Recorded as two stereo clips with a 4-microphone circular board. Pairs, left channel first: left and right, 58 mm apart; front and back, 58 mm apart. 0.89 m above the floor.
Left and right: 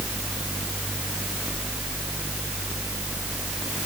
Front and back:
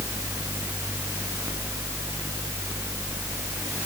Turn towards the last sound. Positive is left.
No sound to turn to.